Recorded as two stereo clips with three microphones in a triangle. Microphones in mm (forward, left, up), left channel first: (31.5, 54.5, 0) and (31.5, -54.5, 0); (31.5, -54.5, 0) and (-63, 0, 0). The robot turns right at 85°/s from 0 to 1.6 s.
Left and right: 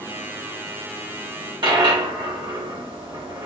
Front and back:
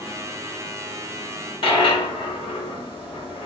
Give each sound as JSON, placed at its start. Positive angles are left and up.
{"t": 1.6, "sound": "a dropped coin", "azimuth_deg": -55, "distance_m": 1.8}